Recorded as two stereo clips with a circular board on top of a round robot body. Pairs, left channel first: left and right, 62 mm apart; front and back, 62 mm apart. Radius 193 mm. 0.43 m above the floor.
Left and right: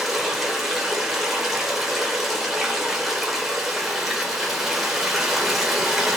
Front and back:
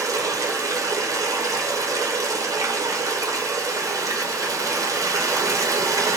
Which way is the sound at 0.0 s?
Straight behind.